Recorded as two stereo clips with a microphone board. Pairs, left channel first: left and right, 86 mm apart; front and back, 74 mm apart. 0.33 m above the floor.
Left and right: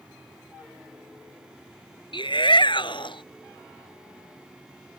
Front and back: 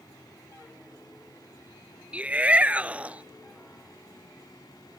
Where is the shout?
110° left.